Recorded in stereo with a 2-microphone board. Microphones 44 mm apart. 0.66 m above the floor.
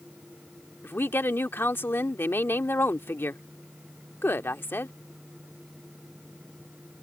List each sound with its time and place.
0.8 s a woman speaking: 65° left (ahead or behind)